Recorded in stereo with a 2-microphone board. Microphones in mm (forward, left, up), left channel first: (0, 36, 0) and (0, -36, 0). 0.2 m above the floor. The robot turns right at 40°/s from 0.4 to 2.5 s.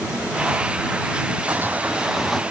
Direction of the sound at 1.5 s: 35° right.